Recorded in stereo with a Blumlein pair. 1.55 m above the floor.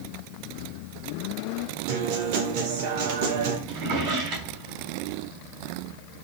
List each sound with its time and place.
1.9 s a guitar: 45° right, 2 m
3.7 s a drawer: 35° right, 4 m